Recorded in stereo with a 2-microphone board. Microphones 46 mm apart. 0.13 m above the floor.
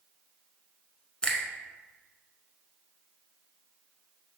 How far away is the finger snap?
About 1.1 m.